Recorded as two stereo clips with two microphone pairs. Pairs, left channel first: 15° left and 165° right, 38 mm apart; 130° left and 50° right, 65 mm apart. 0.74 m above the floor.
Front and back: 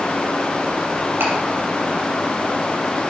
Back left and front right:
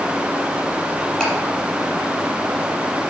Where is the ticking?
155° right, 4.5 m.